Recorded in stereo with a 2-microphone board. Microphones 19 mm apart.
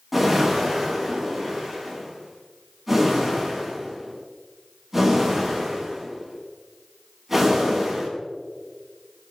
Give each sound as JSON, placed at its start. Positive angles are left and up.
{"t": 0.1, "sound": "a whoosh", "side_deg": -10, "distance_m": 4.5}